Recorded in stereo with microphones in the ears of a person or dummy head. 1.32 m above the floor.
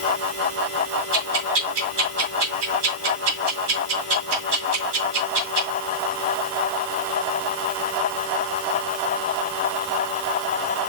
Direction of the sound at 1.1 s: 60° right (ahead or behind).